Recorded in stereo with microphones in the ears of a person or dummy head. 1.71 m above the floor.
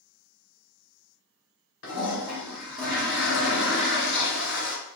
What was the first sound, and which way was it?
A toilet flushing, 65° left (ahead or behind).